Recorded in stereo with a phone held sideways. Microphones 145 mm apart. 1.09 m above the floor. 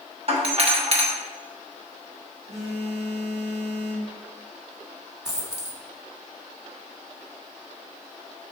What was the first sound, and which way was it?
A doorbell, 45° right (ahead or behind).